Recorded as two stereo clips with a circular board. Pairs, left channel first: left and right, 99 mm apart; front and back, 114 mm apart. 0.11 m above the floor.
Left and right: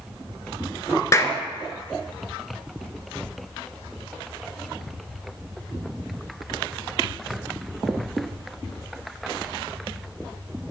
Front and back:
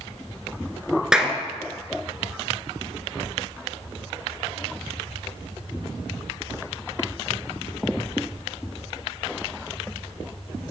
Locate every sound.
1.1 s a clap: 100° left, 0.9 m